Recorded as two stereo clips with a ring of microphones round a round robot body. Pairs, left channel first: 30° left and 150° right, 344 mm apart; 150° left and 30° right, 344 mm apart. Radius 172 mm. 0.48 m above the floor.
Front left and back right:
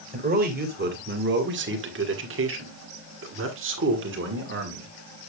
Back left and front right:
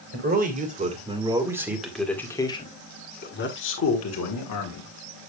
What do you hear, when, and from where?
0.1 s a man speaking: 90° right, 2 m; by 4.9 s 155° left, 1.9 m